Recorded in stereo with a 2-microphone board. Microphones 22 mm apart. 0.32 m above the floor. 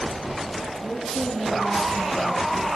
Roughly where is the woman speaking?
Left.